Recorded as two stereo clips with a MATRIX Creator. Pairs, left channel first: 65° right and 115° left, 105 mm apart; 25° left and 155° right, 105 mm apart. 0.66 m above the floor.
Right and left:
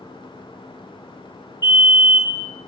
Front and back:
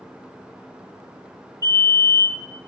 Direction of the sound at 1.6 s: 25° right.